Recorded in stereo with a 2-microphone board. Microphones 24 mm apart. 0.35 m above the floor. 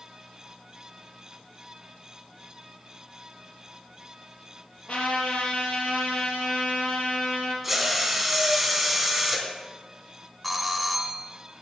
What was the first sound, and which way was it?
A trumpet, 60° left (ahead or behind).